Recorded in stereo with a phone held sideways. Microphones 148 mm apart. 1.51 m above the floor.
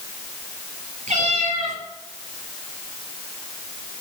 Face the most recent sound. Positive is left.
turn(degrees=-55)  # may be behind; listen again after turning